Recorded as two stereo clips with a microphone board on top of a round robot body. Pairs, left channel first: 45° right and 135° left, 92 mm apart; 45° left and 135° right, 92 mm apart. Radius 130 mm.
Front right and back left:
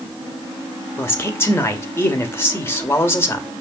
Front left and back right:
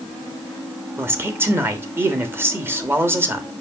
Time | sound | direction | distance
1.0 | a man speaking | 90° right | 1.6 m